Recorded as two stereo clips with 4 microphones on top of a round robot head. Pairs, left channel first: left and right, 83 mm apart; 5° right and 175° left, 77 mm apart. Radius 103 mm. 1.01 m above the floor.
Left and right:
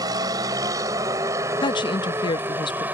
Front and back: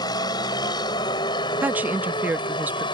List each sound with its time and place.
0.0 s a vehicle: 45° right; by 2.9 s 20° right
1.6 s a woman speaking: 110° left